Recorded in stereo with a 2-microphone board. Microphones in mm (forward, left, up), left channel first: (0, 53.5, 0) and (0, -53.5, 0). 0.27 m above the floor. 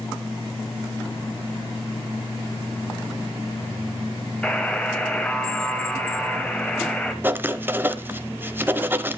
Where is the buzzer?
10° left (ahead or behind), 1.1 m.